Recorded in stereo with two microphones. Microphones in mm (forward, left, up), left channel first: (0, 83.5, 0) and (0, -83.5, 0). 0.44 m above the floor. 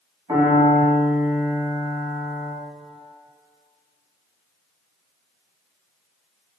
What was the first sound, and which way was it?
A piano, 25° right (ahead or behind).